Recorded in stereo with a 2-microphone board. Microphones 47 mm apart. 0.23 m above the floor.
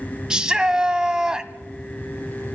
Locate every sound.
0.3 s a shout: 15° right (ahead or behind), 1.2 m